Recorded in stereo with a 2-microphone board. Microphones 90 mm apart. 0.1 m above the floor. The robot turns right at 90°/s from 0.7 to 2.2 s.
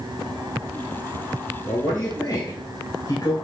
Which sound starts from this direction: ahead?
A man speaking, at 1.7 s.